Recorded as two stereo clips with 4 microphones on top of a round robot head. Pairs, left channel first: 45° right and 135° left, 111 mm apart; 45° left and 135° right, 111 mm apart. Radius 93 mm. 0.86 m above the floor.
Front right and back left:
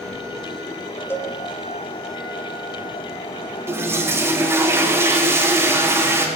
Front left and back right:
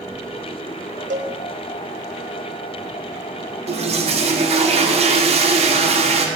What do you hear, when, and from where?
1.1 s a cowbell: 120° right, 1.1 m
3.7 s a toilet flushing: 160° right, 2.5 m